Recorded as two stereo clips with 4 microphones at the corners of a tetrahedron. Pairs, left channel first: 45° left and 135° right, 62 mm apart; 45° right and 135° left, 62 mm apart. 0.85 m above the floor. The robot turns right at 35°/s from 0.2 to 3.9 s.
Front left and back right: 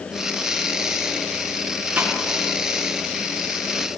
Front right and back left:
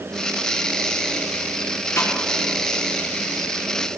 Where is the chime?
I don't hear a chime.